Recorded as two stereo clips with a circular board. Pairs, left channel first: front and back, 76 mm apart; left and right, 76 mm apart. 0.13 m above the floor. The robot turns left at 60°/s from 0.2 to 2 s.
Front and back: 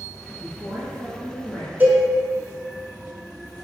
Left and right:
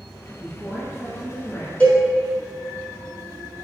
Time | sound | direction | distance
0.4 | a woman speaking | 165° right | 1.6 m
1.8 | a cowbell | 145° left | 0.9 m